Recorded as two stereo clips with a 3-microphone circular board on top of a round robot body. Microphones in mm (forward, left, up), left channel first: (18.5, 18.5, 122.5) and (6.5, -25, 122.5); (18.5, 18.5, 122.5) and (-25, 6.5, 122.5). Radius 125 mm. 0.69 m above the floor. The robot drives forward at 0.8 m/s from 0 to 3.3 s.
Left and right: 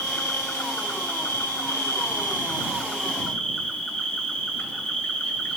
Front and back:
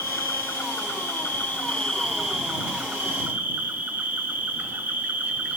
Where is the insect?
30° left, 1.7 m; by 5.6 s 145° left, 1.5 m.